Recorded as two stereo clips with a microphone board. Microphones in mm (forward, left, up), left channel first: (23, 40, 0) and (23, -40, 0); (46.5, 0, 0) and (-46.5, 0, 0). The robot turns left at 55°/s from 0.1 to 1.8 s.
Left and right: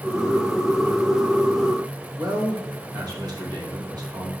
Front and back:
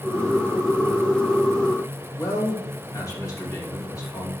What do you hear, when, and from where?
2.2 s a man speaking: 55° right, 3 m